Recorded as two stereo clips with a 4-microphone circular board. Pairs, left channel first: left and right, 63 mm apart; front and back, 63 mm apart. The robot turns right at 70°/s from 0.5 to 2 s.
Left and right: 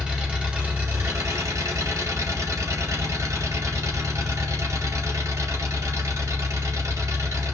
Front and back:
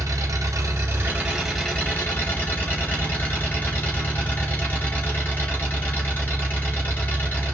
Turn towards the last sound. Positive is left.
turn(degrees=-60)